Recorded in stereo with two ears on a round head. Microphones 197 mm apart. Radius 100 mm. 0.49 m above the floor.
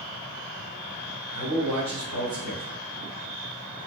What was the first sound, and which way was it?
A man speaking, 50° right (ahead or behind).